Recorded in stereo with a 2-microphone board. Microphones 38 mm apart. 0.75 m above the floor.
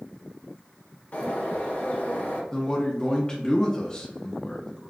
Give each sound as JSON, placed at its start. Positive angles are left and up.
{"t": 1.1, "sound": "a bird", "side_deg": 50, "distance_m": 0.8}
{"t": 2.5, "sound": "a man speaking", "side_deg": 20, "distance_m": 0.5}